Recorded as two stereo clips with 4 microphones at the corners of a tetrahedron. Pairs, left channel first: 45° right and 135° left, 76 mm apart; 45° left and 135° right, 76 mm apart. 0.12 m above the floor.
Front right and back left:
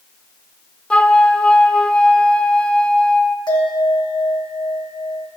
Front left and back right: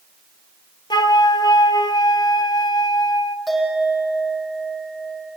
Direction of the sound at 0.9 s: 30° left.